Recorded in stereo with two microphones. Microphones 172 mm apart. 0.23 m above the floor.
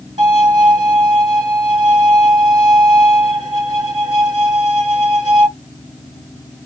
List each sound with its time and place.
0.2 s a violin: 30° right (ahead or behind), 1.9 m